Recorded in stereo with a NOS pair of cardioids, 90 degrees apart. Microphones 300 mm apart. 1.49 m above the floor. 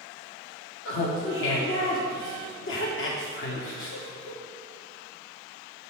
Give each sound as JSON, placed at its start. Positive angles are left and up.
{"t": 0.8, "sound": "laughter", "azimuth_deg": 45, "distance_m": 1.0}